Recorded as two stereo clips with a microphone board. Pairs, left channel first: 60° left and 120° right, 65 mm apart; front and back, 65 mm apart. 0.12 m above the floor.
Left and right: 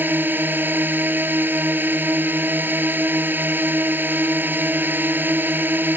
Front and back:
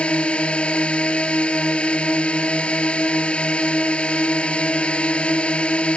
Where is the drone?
70° right.